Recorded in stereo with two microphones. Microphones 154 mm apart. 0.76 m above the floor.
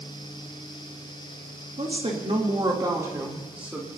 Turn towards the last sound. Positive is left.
turn(degrees=-5)  # may be behind; listen again after turning